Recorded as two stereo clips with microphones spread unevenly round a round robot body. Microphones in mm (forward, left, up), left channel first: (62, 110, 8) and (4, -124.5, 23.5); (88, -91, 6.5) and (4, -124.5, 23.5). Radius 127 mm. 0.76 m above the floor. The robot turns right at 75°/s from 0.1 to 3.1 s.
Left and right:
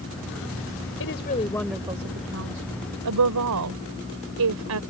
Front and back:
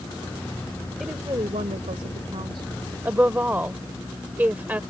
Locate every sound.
1.0 s a woman speaking: 115° left; by 4.8 s 90° right